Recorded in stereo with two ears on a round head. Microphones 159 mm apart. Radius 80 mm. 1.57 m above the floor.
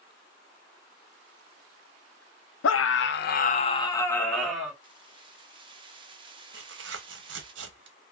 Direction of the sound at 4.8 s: 30° right (ahead or behind).